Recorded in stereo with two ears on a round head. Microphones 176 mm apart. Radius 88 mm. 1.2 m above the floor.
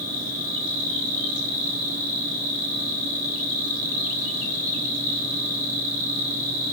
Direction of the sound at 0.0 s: 40° left (ahead or behind).